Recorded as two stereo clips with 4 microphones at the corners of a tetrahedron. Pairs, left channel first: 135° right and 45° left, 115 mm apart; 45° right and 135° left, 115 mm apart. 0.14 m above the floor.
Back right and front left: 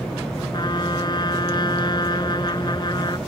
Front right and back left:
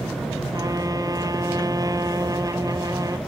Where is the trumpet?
175° right.